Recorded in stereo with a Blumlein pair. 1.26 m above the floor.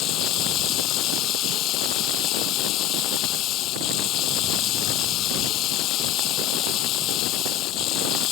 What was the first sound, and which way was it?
Running water, 35° left.